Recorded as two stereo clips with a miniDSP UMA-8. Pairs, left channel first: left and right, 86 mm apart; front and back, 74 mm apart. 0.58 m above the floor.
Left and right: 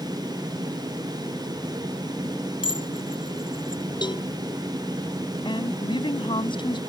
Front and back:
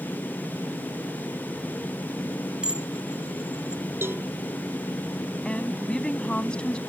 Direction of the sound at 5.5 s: 75° left.